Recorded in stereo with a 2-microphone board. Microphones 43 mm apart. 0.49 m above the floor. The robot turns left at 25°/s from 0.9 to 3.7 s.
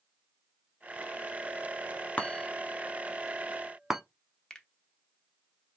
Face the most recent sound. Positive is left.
turn(degrees=15)  # may be behind; listen again after turning